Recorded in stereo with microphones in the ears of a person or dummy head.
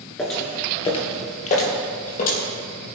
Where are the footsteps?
5° left (ahead or behind), 1.7 m; by 2.4 s 50° left (ahead or behind), 4 m.